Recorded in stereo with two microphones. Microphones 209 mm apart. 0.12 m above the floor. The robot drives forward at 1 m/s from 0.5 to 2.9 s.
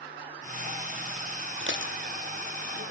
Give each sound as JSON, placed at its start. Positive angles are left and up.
{"t": 1.6, "sound": "dishes clattering", "side_deg": -60, "distance_m": 3.5}